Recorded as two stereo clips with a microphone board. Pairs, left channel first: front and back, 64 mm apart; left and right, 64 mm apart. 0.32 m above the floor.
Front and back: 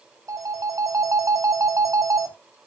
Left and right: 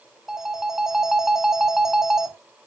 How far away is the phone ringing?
About 1.3 m.